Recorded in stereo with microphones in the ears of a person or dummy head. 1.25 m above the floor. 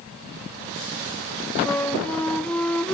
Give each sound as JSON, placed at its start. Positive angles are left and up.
{"t": 1.6, "sound": "a flute", "side_deg": 5, "distance_m": 0.6}